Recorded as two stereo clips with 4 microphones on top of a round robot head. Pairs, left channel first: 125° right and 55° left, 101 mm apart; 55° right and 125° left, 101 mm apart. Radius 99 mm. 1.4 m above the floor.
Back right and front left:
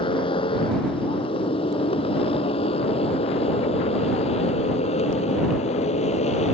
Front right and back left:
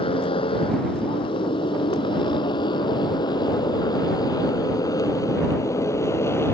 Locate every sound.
0.0 s a motorcycle: 90° right; by 6.5 s 120° right